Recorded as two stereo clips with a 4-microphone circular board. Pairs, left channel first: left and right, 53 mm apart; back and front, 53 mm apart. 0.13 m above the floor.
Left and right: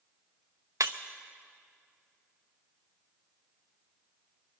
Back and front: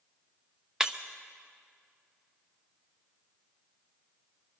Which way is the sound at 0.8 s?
80° right.